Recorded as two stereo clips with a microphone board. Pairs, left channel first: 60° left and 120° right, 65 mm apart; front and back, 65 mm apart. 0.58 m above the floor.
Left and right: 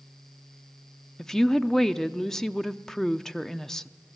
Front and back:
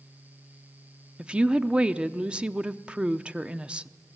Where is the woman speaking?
130° left, 0.6 m.